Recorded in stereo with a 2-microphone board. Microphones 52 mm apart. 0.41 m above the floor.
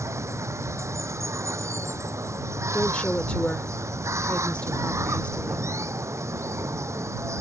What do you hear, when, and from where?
0.0 s running water: 70° right (ahead or behind)
2.7 s a woman speaking: 25° left (ahead or behind)